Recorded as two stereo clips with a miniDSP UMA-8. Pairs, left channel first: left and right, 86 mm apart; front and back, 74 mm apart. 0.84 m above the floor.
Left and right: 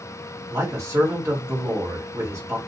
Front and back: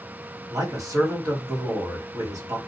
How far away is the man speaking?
About 1.8 m.